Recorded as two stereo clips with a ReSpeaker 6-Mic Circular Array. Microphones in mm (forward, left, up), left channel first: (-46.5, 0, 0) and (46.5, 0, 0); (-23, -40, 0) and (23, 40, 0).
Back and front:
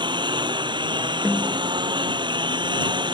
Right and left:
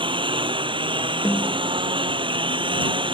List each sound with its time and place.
0.0 s a lawn mower: 35° left
1.2 s a snare drum: 105° right